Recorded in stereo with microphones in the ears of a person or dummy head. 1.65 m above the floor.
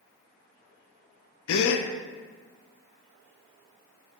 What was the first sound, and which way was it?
A gasp, 70° left (ahead or behind).